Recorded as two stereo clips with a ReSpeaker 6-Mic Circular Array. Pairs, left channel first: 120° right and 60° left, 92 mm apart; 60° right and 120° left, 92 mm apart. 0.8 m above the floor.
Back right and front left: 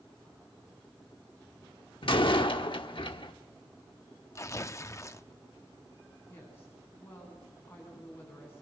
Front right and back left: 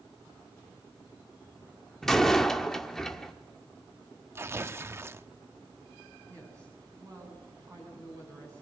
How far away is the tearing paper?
About 0.5 m.